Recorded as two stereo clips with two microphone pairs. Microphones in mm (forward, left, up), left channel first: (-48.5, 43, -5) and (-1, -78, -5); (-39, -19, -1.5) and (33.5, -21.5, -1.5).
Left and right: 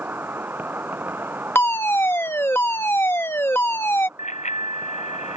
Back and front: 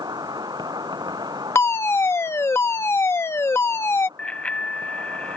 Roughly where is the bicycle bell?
Left.